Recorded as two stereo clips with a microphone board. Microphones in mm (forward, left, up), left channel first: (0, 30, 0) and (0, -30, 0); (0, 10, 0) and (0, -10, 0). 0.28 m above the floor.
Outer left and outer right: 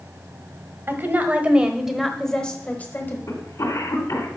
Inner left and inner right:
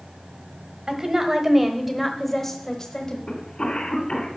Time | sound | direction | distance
0.9 | a woman speaking | 35° right (ahead or behind) | 1.2 m
3.3 | a cough | 65° left (ahead or behind) | 2.5 m